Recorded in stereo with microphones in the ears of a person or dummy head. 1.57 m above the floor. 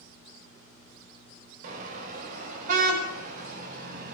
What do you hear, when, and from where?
1.6 s a car horn: 50° right (ahead or behind), 4 m